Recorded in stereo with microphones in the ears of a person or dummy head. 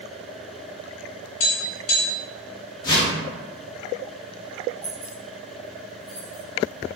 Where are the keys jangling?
15° left (ahead or behind), 0.7 m.